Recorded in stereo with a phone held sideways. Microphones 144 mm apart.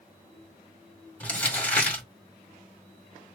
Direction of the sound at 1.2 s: 10° left (ahead or behind).